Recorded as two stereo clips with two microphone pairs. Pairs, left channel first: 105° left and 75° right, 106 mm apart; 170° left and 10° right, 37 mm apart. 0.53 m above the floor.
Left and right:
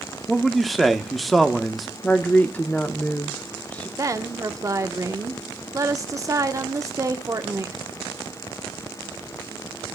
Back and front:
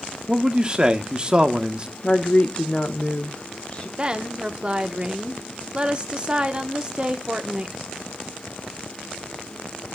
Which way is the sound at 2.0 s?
165° left.